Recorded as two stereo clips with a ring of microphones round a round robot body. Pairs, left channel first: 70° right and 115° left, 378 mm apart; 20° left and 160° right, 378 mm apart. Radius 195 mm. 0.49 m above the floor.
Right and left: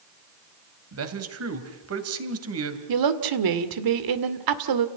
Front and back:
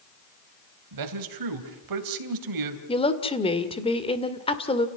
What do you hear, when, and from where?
0.9 s a man speaking: 165° left, 3 m
2.9 s a woman speaking: 95° left, 2 m